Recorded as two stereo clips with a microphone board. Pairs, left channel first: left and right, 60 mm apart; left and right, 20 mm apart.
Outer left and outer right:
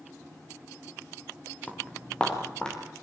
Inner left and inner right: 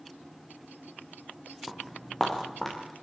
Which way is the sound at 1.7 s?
15° left (ahead or behind).